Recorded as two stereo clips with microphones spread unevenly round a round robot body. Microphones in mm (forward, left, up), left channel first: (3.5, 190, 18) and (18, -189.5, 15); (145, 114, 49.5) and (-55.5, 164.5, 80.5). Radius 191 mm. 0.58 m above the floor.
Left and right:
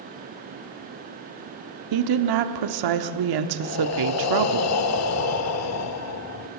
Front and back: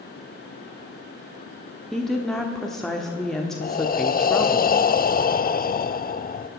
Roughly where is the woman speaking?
Right.